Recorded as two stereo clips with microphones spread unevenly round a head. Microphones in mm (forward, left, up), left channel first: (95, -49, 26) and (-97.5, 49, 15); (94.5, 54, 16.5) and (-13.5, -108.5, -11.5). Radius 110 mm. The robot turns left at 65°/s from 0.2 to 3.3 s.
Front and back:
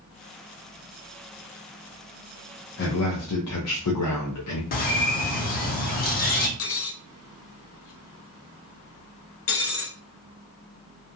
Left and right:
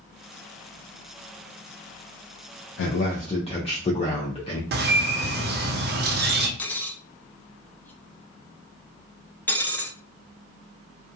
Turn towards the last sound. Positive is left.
turn(degrees=-20)